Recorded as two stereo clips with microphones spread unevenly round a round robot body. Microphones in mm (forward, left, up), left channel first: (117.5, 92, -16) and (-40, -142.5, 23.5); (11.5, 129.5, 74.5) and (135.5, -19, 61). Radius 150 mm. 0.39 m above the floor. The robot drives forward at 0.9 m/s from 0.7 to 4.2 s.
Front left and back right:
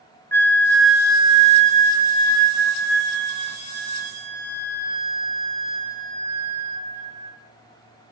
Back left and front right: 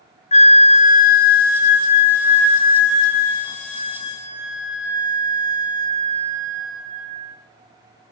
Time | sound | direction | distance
0.3 | a flute | 110° left | 0.6 m